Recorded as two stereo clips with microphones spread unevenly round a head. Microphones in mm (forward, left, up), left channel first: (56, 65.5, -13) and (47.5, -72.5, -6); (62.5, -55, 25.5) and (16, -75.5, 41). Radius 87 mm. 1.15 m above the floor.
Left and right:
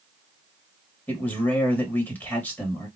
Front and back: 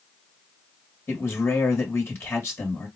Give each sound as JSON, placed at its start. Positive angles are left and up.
{"t": 1.1, "sound": "a man speaking", "azimuth_deg": 15, "distance_m": 1.5}